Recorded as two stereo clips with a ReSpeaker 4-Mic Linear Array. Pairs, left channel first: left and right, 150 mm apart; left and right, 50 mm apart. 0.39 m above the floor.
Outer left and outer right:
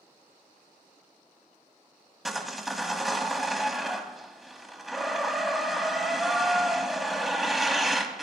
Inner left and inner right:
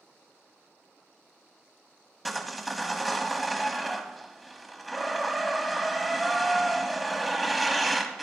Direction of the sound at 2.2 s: Centre (ahead or behind).